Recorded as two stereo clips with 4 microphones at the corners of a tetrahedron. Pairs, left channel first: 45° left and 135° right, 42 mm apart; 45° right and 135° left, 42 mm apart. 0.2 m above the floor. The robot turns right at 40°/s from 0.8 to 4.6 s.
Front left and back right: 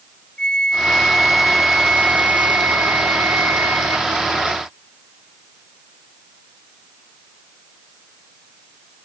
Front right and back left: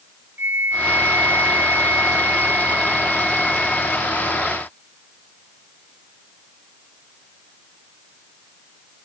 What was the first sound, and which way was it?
A flute, 115° left.